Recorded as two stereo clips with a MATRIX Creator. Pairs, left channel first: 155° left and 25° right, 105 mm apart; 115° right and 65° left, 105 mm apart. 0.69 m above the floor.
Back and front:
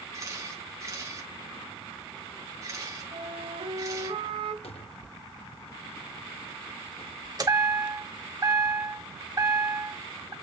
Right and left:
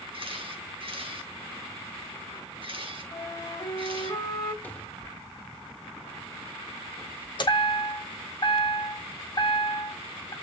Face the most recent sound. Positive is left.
turn(degrees=-70)